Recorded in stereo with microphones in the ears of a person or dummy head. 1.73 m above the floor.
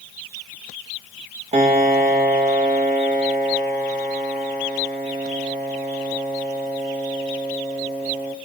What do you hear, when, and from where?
1.5 s a piano: 30° right (ahead or behind), 1.6 m